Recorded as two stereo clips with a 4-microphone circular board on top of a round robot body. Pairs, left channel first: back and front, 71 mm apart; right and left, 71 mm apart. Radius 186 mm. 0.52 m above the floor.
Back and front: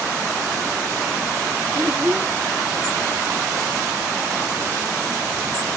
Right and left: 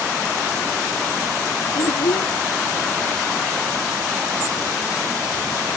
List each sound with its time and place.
1.8 s a child speaking: 70° right